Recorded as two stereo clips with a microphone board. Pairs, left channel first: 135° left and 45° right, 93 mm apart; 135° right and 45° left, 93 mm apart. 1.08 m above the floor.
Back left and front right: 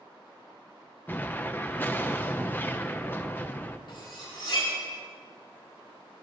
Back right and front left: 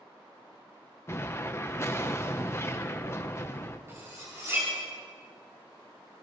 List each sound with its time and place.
1.1 s an explosion: 175° right, 0.8 m
3.9 s cutlery clinking: 105° left, 7.5 m